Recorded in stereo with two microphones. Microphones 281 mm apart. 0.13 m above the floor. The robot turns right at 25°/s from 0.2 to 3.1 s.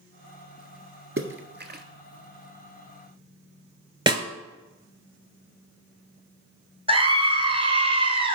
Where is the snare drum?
20° right (ahead or behind), 0.6 m.